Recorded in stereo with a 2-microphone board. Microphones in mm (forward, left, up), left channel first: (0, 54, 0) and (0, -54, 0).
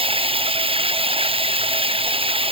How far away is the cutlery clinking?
No cutlery clinking in this recording.